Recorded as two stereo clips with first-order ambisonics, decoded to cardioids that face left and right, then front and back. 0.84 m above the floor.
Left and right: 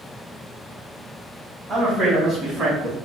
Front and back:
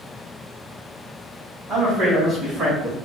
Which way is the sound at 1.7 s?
150° right.